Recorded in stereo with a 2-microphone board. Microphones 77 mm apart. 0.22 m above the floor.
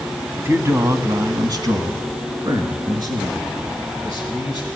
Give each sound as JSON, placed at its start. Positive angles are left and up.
{"t": 0.4, "sound": "a man speaking", "side_deg": -30, "distance_m": 1.2}